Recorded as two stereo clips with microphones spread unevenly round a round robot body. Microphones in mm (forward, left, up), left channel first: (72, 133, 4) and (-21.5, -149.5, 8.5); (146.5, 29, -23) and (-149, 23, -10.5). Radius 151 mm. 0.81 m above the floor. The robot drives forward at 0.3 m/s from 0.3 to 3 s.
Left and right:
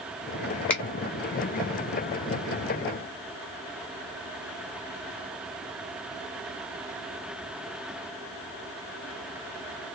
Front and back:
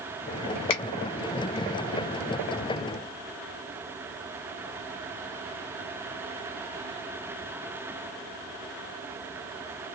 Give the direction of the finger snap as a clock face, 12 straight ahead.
12 o'clock.